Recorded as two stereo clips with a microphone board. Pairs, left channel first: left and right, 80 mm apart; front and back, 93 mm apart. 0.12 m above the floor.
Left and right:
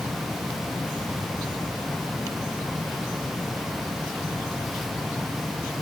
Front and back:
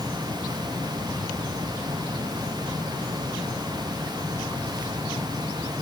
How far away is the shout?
No shout in this recording.